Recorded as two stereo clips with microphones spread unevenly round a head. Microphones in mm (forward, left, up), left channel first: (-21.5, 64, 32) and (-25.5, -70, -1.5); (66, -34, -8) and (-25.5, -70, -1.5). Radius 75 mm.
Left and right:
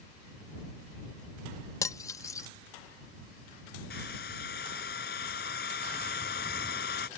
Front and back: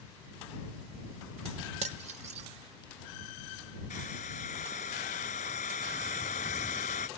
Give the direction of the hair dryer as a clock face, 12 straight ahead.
10 o'clock.